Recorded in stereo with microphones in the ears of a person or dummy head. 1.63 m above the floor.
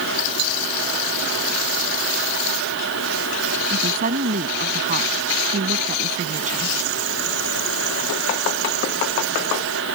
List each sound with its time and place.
3.7 s a woman speaking: 50° right (ahead or behind); by 6.8 s 45° right (ahead or behind)